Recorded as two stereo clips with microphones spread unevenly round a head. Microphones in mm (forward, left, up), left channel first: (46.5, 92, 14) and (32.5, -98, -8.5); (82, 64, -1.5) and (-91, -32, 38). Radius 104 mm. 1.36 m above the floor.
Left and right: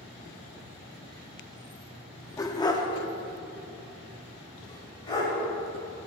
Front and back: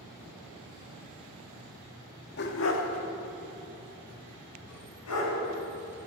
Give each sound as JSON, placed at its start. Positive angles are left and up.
{"t": 2.4, "sound": "a dog barking", "azimuth_deg": 40, "distance_m": 0.9}